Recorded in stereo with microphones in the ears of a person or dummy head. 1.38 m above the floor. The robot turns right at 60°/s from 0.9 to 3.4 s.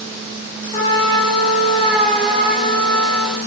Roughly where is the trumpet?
Behind left.